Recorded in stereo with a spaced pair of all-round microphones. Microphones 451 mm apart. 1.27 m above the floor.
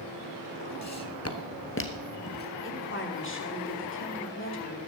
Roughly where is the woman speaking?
Left.